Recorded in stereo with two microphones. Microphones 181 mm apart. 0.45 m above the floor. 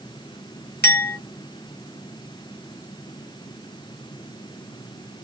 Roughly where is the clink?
Left.